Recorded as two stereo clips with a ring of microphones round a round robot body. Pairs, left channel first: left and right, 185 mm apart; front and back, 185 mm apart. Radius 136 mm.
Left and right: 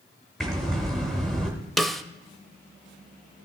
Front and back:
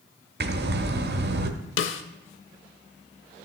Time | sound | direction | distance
0.4 | breathing | straight behind | 0.9 m
1.8 | a snare drum | straight ahead | 0.6 m